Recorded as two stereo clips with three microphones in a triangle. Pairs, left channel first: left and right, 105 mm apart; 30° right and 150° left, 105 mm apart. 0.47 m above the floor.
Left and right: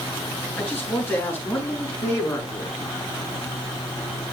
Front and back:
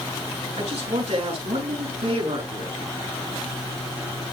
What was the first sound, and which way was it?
A man speaking, 165° left.